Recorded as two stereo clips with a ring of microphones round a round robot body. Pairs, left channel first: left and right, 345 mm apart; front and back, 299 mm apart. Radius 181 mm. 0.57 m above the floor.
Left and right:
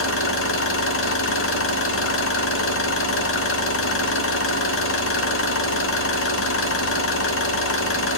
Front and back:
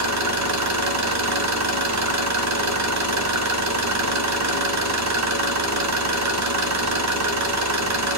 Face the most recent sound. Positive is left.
turn(degrees=145)